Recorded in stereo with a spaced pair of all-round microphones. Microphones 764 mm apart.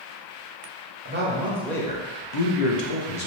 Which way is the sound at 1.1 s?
15° right (ahead or behind).